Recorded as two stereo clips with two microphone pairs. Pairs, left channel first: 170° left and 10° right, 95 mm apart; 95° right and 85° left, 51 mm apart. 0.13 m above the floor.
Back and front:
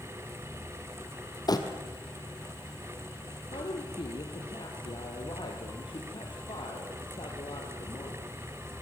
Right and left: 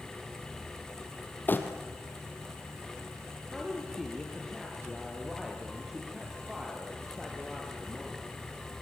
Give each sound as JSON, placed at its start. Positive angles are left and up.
{"t": 1.5, "sound": "crumpling", "azimuth_deg": -145, "distance_m": 2.5}
{"t": 3.5, "sound": "a woman speaking", "azimuth_deg": 170, "distance_m": 3.5}